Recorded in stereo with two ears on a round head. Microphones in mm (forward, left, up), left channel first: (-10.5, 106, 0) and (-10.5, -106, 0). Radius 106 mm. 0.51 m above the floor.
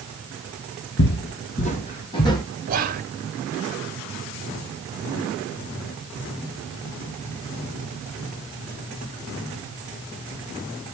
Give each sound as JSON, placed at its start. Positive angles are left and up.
{"t": 1.0, "sound": "footsteps", "side_deg": 50, "distance_m": 1.0}
{"t": 2.7, "sound": "whispering", "side_deg": -40, "distance_m": 1.0}